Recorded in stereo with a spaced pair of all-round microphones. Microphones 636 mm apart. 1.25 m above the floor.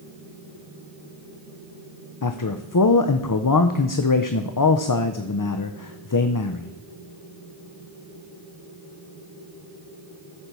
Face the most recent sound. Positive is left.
turn(degrees=35)  # may be behind; listen again after turning